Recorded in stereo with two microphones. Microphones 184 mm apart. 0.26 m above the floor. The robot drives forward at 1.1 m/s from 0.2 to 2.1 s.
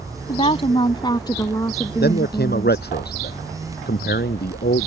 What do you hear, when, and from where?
0.3 s a woman speaking: 35° left (ahead or behind); by 2.9 s 15° left (ahead or behind)
2.0 s a man speaking: 60° left (ahead or behind)